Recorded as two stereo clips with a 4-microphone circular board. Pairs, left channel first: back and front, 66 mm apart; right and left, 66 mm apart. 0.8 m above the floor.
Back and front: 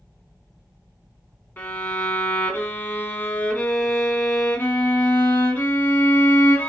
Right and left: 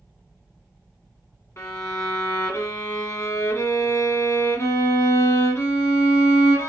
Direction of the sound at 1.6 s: 125° right.